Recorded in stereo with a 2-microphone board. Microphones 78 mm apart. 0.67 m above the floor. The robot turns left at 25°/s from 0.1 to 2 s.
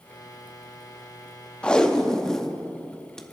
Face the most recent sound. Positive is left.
turn(degrees=10)  # may be behind; listen again after turning